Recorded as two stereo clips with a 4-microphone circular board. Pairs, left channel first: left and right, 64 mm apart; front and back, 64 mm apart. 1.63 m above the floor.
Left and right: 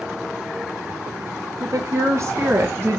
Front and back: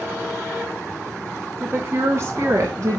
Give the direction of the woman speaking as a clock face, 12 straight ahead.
4 o'clock.